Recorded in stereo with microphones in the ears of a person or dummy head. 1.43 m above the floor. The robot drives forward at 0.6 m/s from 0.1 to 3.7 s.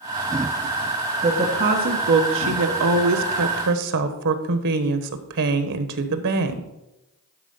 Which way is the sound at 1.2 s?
40° right (ahead or behind).